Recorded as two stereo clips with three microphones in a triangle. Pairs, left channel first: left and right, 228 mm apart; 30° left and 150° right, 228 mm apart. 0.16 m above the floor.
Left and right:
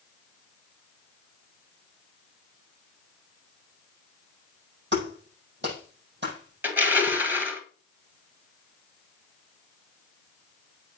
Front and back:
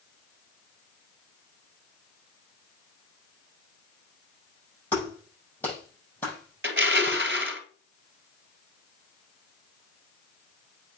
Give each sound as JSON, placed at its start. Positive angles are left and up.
{"t": 4.9, "sound": "a clap", "azimuth_deg": -55, "distance_m": 5.5}
{"t": 6.6, "sound": "crushing", "azimuth_deg": -170, "distance_m": 1.5}